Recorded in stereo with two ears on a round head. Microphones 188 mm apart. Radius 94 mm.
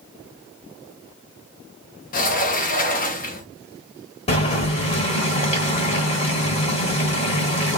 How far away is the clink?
No clink in this recording.